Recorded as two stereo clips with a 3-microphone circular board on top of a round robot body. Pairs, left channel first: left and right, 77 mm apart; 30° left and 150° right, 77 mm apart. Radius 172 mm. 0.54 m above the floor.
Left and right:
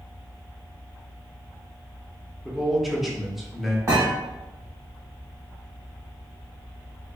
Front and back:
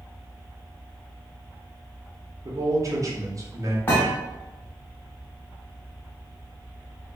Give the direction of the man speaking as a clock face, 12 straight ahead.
6 o'clock.